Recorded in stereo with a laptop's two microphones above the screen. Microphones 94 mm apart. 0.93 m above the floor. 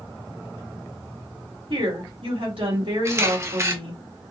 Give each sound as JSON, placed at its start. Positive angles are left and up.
{"t": 1.7, "sound": "a woman speaking", "side_deg": -70, "distance_m": 2.0}
{"t": 3.0, "sound": "a camera shutter", "side_deg": -30, "distance_m": 1.1}